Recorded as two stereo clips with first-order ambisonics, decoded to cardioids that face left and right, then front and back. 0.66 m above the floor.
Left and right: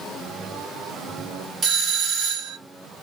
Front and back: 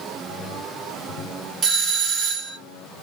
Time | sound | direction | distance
1.6 | a doorbell | 135° right | 1.7 m